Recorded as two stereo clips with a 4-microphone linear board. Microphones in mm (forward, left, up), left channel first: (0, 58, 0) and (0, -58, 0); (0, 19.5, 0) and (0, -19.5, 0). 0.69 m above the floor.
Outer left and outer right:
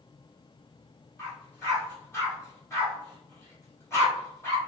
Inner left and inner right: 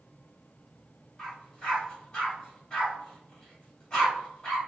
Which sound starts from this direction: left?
A dog barking, at 1.2 s.